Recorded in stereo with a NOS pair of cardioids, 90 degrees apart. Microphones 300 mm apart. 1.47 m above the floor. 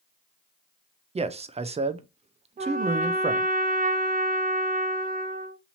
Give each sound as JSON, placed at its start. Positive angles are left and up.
{"t": 1.1, "sound": "a man speaking", "azimuth_deg": -20, "distance_m": 0.6}
{"t": 2.6, "sound": "a trumpet", "azimuth_deg": -30, "distance_m": 0.7}